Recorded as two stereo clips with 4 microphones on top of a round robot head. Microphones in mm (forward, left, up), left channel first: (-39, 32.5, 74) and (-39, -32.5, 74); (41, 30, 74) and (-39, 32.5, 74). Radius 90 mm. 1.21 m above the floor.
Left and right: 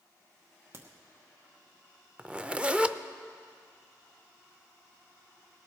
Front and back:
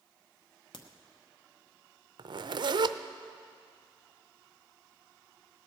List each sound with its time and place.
0.7 s a crack: 30° right, 0.9 m
2.2 s a zipper: 165° right, 0.5 m